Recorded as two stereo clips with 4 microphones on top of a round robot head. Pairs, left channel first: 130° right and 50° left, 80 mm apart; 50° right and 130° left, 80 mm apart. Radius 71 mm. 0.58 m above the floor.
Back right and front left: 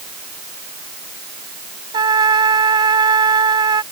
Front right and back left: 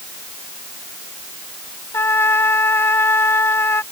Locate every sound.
1.9 s a trumpet: 15° left